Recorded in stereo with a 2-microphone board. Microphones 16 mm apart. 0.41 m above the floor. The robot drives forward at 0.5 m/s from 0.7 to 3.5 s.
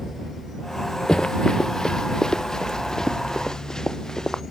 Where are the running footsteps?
70° left (ahead or behind); by 4.4 s 55° left (ahead or behind).